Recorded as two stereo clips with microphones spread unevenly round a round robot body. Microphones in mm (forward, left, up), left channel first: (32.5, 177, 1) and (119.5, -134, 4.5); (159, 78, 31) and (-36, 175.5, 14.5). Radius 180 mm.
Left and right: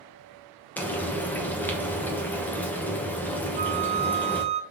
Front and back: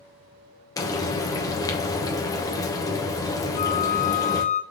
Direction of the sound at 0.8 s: 30° left.